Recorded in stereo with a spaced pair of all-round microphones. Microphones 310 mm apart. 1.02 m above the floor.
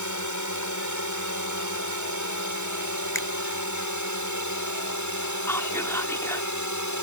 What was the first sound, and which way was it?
A drone, 70° left (ahead or behind).